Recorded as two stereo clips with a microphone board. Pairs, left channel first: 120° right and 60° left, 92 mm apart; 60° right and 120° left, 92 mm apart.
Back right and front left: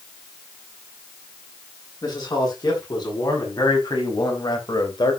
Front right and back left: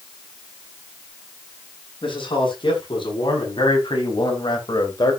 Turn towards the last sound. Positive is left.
turn(degrees=-95)